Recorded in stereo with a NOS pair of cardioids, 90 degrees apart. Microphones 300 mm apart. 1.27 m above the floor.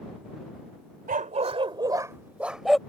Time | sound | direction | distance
1.1 | a dog barking | 30° right | ?